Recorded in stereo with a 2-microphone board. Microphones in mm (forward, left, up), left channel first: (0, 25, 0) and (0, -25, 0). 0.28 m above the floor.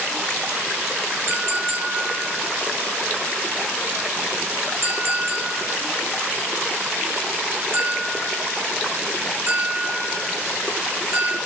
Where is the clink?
65° right (ahead or behind), 2 m.